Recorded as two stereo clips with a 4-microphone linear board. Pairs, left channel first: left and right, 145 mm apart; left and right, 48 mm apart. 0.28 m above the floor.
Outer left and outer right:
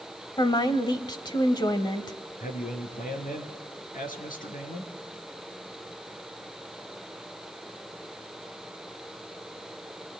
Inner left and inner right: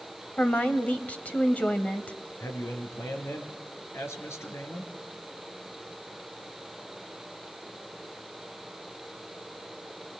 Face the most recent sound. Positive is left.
turn(degrees=75)  # may be behind; listen again after turning